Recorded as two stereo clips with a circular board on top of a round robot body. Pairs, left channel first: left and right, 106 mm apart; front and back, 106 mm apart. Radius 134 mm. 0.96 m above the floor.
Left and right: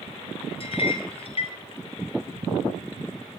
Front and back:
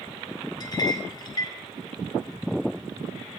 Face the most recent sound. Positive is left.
turn(degrees=55)